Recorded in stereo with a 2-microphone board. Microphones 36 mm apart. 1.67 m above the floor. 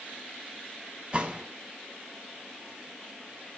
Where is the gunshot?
25° right (ahead or behind), 1.7 m.